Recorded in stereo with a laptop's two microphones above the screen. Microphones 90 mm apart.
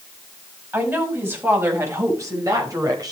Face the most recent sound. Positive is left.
turn(degrees=-45)  # may be behind; listen again after turning